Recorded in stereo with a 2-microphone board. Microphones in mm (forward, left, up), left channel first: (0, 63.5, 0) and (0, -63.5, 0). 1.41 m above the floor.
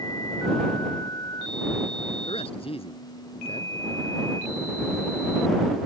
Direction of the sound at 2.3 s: 45° left (ahead or behind).